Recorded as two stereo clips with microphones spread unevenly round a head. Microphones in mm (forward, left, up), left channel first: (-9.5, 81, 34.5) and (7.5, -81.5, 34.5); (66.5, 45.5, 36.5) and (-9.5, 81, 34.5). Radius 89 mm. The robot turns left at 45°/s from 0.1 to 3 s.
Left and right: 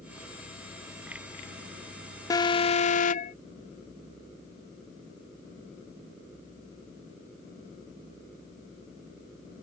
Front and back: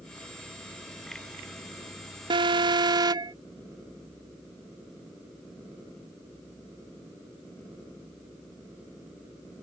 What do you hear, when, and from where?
2.3 s an alarm: 165° left; by 3.3 s 130° left